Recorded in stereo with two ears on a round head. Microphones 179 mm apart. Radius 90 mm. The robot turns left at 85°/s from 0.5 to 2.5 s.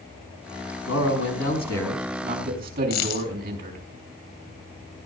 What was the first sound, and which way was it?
A man speaking, 95° left.